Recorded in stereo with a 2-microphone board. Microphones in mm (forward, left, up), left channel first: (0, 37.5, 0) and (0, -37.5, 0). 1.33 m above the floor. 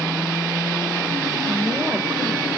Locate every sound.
1.5 s a woman speaking: 5° right (ahead or behind), 1.1 m